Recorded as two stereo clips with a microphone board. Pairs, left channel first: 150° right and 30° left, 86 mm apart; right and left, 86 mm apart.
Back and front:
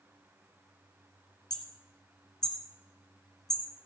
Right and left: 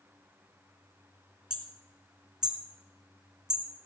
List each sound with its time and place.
1.5 s hammering: 170° left, 1.9 m